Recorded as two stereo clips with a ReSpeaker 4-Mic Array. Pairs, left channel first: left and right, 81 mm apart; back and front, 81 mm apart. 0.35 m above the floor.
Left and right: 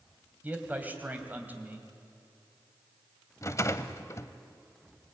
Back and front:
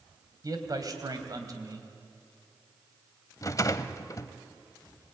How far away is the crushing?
I don't hear crushing.